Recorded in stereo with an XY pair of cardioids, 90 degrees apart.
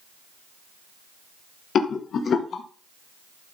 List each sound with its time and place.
1.8 s a rattle: 65° left, 1.2 m